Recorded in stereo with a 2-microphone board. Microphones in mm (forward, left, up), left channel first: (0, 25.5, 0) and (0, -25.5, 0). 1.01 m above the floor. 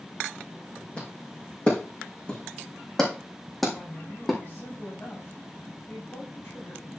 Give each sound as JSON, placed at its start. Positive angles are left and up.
{"t": 1.0, "sound": "footsteps", "side_deg": 25, "distance_m": 4.5}
{"t": 3.7, "sound": "a woman speaking", "side_deg": 40, "distance_m": 6.5}